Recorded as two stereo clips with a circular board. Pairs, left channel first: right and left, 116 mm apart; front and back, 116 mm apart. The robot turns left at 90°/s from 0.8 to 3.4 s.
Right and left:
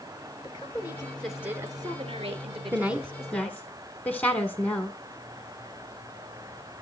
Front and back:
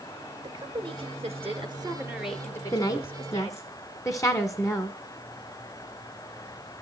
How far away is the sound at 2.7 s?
About 1.3 m.